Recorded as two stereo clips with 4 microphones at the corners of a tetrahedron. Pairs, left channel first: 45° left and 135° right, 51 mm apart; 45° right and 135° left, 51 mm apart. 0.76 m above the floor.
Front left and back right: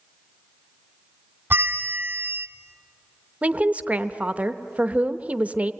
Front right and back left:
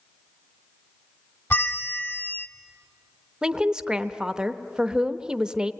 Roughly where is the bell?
Right.